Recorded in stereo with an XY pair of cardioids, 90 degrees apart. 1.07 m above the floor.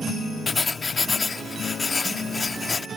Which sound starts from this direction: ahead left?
Writing, at 0.5 s.